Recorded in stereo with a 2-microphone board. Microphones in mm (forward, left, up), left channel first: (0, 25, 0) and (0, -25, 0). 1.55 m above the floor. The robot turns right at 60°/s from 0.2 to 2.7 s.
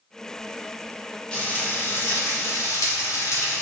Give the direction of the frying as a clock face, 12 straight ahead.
11 o'clock.